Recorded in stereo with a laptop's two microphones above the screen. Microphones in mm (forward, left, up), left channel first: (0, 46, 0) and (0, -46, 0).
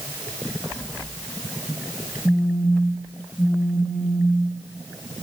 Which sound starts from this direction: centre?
A phone buzzing, at 2.2 s.